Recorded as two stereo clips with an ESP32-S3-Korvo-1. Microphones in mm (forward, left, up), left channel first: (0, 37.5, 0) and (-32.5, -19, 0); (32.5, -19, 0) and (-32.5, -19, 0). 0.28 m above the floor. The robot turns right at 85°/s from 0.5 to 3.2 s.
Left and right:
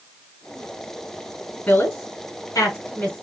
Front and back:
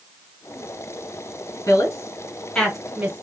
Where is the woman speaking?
5° right, 2 m; by 3.2 s 125° left, 2 m.